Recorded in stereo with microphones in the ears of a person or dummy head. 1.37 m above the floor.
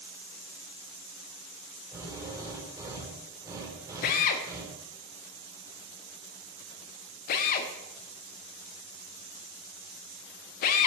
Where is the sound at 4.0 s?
45° left (ahead or behind), 1.1 m.